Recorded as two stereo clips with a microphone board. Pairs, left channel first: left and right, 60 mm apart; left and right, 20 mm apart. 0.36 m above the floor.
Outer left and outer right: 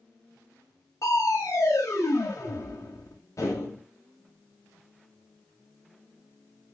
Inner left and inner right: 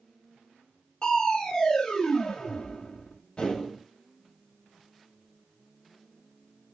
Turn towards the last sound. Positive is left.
turn(degrees=60)  # may be behind; listen again after turning